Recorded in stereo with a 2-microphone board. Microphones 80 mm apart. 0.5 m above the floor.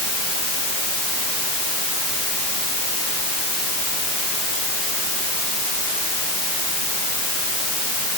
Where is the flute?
I don't hear a flute.